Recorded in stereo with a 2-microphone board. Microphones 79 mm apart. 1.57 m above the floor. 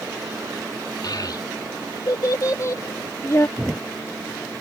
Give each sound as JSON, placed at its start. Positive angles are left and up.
{"t": 1.0, "sound": "a child speaking", "side_deg": 60}
{"t": 3.6, "sound": "a thud", "side_deg": -10}